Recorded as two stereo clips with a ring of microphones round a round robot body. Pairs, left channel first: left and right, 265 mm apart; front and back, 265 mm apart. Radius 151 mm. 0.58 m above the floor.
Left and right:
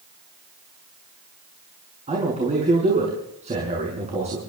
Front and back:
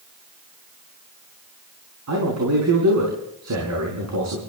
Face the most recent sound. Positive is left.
turn(degrees=-155)